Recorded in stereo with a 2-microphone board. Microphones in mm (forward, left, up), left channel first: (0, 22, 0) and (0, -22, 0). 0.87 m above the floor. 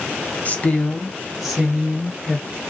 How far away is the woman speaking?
About 0.6 m.